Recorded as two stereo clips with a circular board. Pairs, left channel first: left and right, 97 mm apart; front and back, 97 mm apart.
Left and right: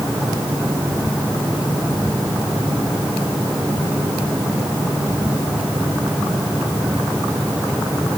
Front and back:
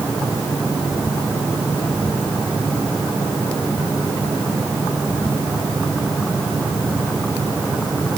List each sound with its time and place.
Only background noise.